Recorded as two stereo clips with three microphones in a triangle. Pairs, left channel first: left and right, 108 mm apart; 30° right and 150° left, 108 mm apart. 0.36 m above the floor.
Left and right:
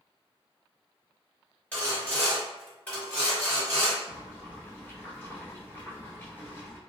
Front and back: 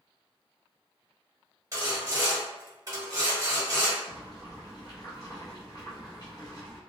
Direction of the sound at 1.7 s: 150° left.